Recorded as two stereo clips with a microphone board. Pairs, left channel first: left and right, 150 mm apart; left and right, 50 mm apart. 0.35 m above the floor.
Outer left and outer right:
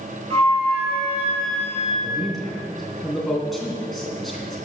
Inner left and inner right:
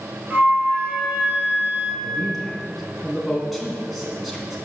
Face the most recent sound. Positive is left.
turn(degrees=0)  # may be behind; listen again after turning